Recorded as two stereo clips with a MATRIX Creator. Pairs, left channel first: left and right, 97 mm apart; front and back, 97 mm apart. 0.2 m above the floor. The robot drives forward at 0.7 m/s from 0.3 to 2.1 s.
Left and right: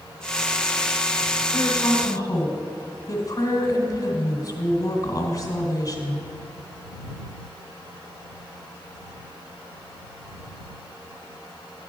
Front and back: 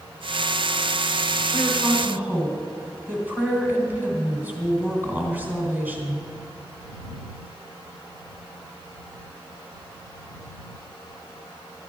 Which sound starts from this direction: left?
A woman speaking, at 1.5 s.